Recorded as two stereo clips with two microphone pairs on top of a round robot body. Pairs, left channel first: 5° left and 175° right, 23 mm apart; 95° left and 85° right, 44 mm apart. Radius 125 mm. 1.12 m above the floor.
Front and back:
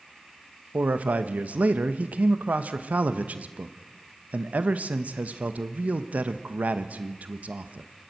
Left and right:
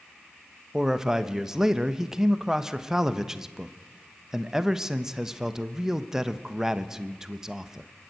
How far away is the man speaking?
About 0.9 m.